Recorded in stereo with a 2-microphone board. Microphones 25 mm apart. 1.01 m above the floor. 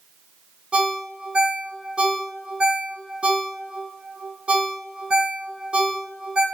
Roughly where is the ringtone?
Right.